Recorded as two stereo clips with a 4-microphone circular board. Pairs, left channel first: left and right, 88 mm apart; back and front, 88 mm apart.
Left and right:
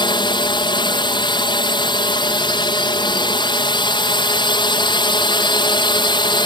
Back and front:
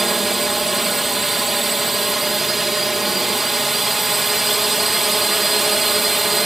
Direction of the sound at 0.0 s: 90° left.